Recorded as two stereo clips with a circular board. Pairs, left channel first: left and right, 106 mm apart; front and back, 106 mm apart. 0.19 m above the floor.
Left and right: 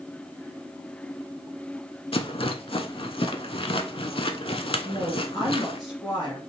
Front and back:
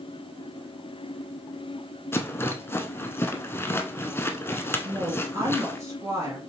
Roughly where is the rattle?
Ahead left.